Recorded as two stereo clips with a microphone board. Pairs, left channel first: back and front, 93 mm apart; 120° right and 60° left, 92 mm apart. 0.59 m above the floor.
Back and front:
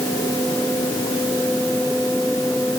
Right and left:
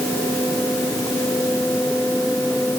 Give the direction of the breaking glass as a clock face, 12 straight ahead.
No breaking glass in this recording.